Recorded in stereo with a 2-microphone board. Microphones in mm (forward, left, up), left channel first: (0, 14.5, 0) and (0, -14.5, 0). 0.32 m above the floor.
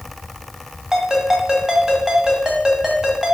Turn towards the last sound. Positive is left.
turn(degrees=-20)  # may be behind; listen again after turning